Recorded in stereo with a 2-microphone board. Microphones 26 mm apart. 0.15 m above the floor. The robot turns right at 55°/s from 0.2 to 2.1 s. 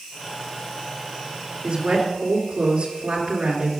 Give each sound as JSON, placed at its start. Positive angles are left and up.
{"t": 1.6, "sound": "a woman speaking", "side_deg": -55, "distance_m": 2.5}